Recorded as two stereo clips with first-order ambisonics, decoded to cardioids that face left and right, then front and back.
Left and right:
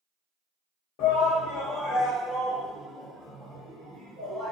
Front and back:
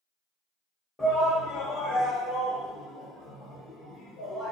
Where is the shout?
75° left, 0.8 m; by 4.5 s 35° right, 1.9 m.